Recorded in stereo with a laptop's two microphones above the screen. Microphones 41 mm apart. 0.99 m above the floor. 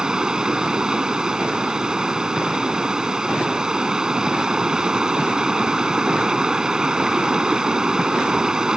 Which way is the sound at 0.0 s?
15° right (ahead or behind).